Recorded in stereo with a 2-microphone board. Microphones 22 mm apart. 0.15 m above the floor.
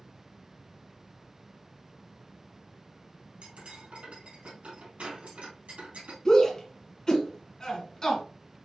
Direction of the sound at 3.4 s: 70° right (ahead or behind).